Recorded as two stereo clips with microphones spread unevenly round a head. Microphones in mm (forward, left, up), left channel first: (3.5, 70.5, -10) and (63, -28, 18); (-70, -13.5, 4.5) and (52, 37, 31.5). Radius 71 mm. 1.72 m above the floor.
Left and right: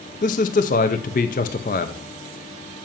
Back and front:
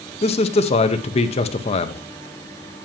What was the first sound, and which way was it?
A man speaking, 155° left.